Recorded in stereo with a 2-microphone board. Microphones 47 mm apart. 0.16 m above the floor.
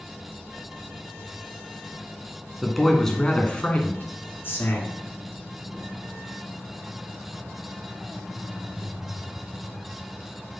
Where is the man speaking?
Centre (ahead or behind), 2 m; by 5.0 s 55° left (ahead or behind), 3 m.